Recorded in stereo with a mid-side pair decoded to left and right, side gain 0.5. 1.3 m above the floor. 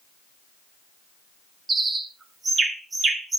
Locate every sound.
1.7 s a bird: 35° right, 1.9 m